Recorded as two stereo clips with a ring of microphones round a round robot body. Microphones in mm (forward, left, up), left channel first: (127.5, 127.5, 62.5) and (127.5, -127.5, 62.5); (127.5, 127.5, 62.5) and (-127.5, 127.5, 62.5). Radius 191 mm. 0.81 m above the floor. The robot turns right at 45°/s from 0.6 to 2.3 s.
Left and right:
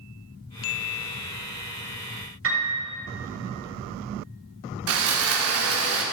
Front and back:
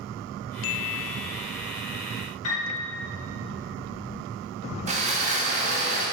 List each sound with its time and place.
2.4 s a piano: 55° right, 1.8 m
4.9 s sawing: 115° right, 0.9 m